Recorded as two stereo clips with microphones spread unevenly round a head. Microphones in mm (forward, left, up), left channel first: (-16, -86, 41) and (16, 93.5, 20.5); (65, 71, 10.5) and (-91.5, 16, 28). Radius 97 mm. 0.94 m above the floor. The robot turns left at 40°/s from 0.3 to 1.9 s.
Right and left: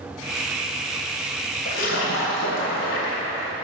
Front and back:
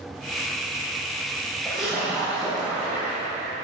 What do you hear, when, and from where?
1.6 s a splash: 65° right, 3 m; by 3.5 s 75° right, 3 m